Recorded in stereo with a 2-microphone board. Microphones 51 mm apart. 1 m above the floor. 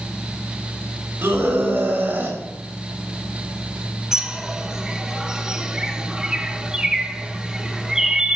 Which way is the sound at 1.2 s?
50° right (ahead or behind).